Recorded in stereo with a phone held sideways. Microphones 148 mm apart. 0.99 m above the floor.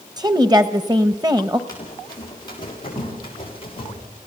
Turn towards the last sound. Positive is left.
turn(degrees=35)  # may be behind; listen again after turning